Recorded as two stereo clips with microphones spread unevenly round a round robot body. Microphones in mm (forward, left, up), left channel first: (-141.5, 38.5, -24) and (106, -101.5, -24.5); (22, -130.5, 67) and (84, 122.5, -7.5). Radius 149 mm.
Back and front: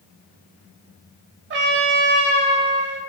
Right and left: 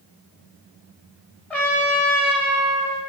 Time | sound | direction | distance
1.5 | a trumpet | 45° right | 0.7 m